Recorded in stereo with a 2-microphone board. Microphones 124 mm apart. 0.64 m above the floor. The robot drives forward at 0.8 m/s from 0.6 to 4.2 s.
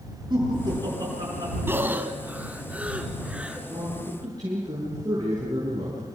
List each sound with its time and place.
0.3 s laughter: 35° right (ahead or behind), 9.5 m; by 1.6 s 30° right (ahead or behind), 10.5 m
1.7 s breathing: 15° right (ahead or behind), 1.4 m; by 3.6 s 10° right (ahead or behind), 3 m
3.7 s a man speaking: 30° right (ahead or behind), 8 m